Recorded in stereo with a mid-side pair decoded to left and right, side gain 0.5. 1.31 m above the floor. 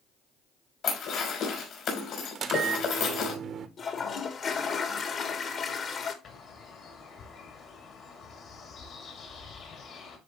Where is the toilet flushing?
45° left, 1.4 m.